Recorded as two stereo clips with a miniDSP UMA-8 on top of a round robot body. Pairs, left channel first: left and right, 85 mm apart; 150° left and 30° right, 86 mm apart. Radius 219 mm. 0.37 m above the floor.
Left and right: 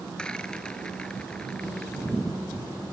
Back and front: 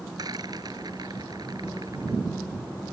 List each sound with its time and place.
0.2 s a rattle: 10° left